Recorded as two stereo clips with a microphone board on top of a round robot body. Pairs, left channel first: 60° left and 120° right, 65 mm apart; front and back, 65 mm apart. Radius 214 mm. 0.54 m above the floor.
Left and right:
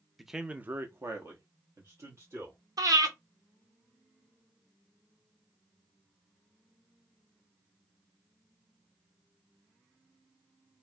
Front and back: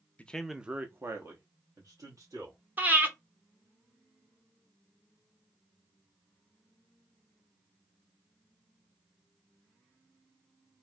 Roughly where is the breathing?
Behind right.